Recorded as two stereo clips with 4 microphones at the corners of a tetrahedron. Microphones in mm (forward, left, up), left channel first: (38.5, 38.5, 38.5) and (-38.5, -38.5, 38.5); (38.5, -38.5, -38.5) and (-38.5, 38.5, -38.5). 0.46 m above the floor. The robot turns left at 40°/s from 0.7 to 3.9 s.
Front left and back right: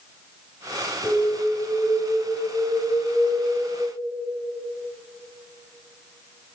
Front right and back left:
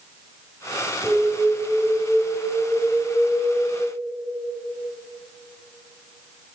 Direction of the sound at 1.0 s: 90° left.